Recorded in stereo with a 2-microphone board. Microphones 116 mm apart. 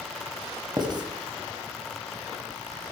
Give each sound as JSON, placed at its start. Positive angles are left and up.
{"t": 0.8, "sound": "writing", "side_deg": -40, "distance_m": 1.6}